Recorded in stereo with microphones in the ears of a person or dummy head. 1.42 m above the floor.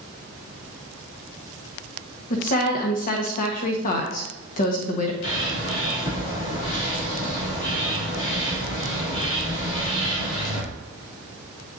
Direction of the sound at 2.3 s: 45° left (ahead or behind).